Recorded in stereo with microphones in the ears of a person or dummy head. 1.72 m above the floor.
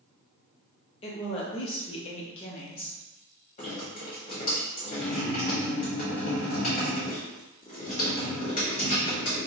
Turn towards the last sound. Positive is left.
turn(degrees=40)  # may be behind; listen again after turning